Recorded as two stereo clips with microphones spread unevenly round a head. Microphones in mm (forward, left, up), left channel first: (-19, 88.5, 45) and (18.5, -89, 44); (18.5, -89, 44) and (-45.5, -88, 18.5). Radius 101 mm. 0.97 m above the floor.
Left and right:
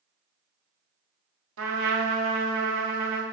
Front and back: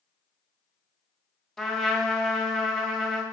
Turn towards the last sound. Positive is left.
turn(degrees=-85)